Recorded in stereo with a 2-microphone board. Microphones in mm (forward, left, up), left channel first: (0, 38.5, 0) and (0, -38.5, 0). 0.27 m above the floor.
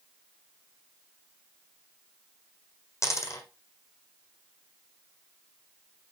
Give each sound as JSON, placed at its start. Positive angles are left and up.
{"t": 3.0, "sound": "a dropped coin", "side_deg": 40, "distance_m": 1.5}